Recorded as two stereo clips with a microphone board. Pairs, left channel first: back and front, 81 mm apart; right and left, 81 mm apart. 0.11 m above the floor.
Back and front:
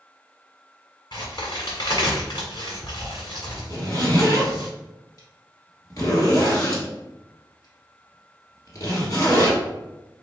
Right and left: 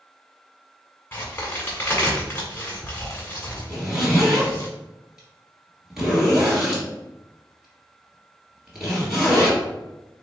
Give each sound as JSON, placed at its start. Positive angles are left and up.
{"t": 1.1, "sound": "a crack", "azimuth_deg": -155, "distance_m": 1.2}
{"t": 3.7, "sound": "a zipper", "azimuth_deg": 170, "distance_m": 1.5}